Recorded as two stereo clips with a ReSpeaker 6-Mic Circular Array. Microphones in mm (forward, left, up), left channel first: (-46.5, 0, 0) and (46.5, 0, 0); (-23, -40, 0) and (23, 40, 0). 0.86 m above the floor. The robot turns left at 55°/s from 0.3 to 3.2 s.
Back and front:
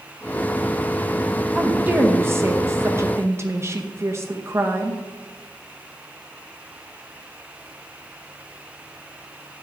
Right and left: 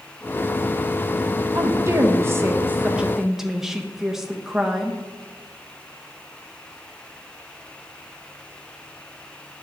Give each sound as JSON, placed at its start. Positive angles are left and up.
{"t": 1.6, "sound": "a woman speaking", "azimuth_deg": 70, "distance_m": 0.8}